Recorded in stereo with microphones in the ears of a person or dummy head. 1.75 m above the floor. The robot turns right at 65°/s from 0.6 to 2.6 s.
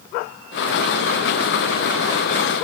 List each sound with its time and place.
Only background noise.